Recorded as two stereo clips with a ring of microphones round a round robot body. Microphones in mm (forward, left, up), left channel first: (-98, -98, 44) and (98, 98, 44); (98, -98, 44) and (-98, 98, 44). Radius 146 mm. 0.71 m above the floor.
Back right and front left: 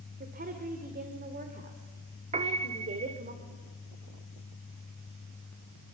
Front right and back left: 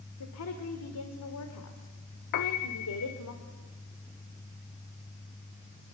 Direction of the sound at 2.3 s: 20° right.